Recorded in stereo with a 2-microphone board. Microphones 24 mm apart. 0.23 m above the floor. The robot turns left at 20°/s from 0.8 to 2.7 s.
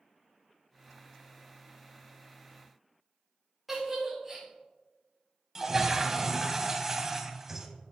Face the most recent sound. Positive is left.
turn(degrees=-15)  # may be behind; listen again after turning